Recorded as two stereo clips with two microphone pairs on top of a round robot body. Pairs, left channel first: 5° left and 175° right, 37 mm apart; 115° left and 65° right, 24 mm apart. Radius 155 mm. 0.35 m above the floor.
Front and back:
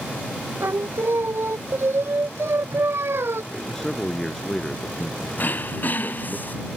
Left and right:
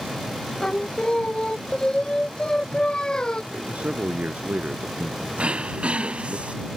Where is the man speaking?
80° right.